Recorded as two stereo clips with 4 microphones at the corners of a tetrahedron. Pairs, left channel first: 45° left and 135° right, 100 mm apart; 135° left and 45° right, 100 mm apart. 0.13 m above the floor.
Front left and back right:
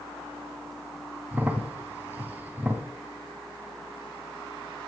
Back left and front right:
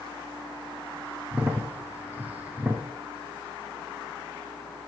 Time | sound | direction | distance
1.3 | a crack | 90° right | 1.2 m